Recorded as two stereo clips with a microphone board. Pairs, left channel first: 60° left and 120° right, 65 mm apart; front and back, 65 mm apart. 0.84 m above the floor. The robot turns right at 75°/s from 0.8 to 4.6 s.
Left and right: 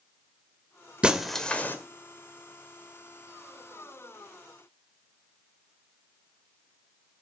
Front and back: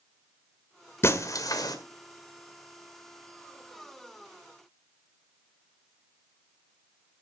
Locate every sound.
1.0 s breaking glass: 50° right, 1.7 m; by 1.8 s 5° left, 1.7 m